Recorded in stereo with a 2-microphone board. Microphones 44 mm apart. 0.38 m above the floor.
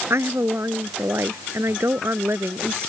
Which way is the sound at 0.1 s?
75° right (ahead or behind).